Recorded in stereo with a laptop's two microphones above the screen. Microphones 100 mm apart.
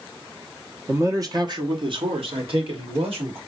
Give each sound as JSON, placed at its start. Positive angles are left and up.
{"t": 0.9, "sound": "a man speaking", "side_deg": -20, "distance_m": 0.8}